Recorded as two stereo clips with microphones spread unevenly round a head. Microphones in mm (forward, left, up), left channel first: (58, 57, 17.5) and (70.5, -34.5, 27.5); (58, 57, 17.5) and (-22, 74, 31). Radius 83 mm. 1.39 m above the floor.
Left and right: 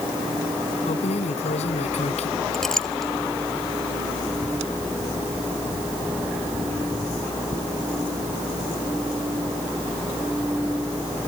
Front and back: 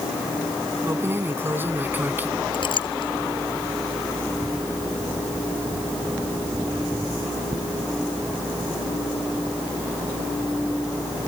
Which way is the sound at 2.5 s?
10° left.